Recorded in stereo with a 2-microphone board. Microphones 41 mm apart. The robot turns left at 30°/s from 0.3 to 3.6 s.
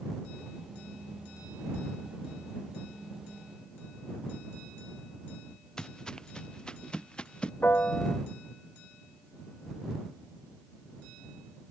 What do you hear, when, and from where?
5.8 s footsteps: 15° left (ahead or behind); by 7.5 s 25° left (ahead or behind)
7.6 s a piano: 55° left (ahead or behind)